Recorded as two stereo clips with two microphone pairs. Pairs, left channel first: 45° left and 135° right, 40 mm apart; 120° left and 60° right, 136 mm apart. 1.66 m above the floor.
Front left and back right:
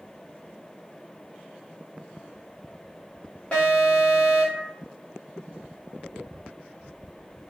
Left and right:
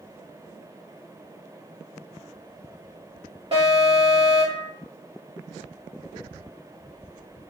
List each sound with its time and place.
3.5 s an alarm: 15° right, 1.4 m